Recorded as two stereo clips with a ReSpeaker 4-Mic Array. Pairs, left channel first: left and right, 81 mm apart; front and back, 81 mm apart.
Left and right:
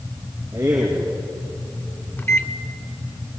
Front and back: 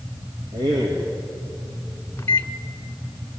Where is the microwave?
45° left, 1.1 m.